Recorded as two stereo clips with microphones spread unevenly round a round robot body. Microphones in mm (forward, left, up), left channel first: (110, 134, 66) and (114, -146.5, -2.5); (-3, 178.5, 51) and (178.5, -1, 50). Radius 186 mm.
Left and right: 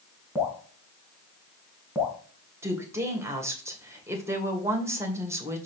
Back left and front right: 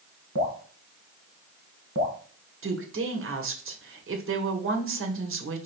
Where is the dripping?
10° right, 3 m.